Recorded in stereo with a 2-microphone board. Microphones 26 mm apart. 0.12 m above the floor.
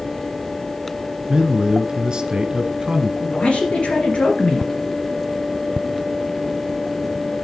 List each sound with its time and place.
1.3 s a man speaking: 30° right (ahead or behind), 1.5 m
3.2 s a man speaking: 45° left (ahead or behind), 2.5 m